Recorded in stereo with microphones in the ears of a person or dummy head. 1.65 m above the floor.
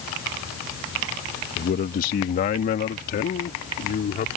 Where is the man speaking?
45° left (ahead or behind).